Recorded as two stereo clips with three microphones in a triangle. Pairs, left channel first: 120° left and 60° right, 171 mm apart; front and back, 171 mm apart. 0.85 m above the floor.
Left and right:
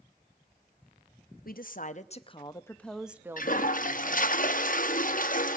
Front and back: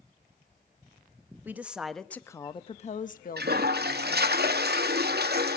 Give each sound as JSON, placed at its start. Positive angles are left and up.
{"t": 1.4, "sound": "a woman speaking", "azimuth_deg": 100, "distance_m": 0.9}
{"t": 3.4, "sound": "a toilet flushing", "azimuth_deg": 160, "distance_m": 0.7}